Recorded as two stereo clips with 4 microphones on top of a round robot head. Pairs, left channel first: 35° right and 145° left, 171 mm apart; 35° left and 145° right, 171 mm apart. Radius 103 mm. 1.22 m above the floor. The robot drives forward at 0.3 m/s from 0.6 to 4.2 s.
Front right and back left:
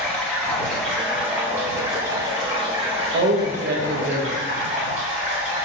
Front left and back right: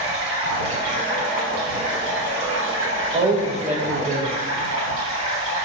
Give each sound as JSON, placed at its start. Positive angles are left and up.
{"t": 0.0, "sound": "running water", "azimuth_deg": -115, "distance_m": 0.8}
{"t": 3.1, "sound": "a man speaking", "azimuth_deg": 160, "distance_m": 0.7}